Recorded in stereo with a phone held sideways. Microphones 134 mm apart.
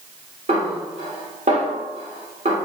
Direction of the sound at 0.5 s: 65° right (ahead or behind).